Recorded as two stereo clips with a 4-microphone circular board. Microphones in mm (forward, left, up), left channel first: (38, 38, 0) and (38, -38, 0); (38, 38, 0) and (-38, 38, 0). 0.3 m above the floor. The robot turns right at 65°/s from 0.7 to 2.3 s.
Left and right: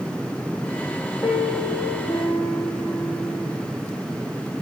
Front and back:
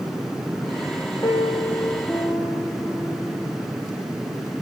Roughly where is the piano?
Ahead left.